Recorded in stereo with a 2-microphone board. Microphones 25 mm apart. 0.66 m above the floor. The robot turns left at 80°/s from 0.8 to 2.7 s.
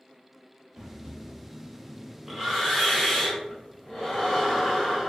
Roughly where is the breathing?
Ahead right.